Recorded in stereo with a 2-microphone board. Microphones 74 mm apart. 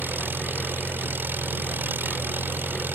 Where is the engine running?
30° right (ahead or behind).